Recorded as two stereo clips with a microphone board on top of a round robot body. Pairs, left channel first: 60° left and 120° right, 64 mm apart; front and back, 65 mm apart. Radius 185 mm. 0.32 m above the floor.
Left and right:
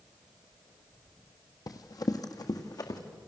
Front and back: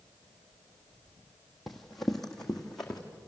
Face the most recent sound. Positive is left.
turn(degrees=85)